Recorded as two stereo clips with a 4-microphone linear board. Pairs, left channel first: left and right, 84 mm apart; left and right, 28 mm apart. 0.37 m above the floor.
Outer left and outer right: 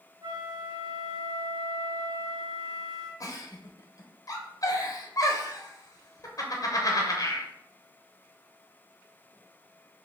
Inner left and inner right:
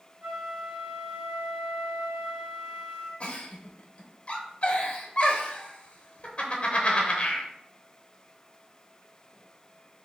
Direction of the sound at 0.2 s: 45° right (ahead or behind).